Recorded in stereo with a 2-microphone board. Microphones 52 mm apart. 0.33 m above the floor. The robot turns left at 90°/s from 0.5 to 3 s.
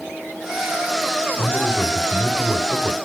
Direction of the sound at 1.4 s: 60° left.